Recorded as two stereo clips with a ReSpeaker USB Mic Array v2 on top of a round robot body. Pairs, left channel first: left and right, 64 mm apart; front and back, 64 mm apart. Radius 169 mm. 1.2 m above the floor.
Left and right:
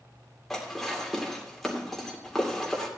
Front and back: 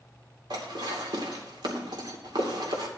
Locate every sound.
0.5 s dishes clattering: straight behind, 2.5 m